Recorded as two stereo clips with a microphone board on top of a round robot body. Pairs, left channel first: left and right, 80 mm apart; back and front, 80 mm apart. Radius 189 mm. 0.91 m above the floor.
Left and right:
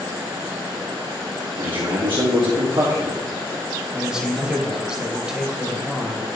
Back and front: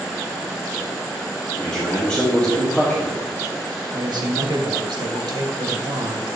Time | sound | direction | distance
1.6 | a man speaking | 105° right | 1.9 m
3.9 | a man speaking | 10° right | 1.9 m